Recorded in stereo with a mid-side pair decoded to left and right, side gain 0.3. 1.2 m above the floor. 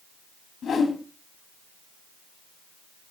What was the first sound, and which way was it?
A whoosh, 70° left.